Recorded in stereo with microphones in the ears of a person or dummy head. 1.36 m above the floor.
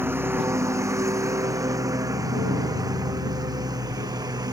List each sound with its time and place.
0.0 s a lawn mower: 10° right (ahead or behind); by 4.5 s 20° right (ahead or behind)